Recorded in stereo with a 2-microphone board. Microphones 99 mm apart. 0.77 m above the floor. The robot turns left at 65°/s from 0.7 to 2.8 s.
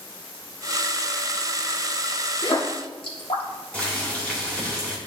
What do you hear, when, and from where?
2.4 s a splash: 50° left (ahead or behind), 1.6 m; by 3.4 s 65° left (ahead or behind), 1.6 m
3.7 s boiling: 15° left (ahead or behind), 2.5 m